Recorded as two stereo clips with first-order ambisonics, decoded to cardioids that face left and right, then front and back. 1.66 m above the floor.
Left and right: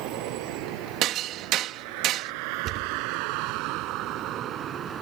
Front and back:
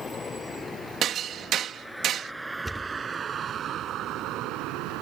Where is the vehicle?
75° right; by 5.0 s 155° right.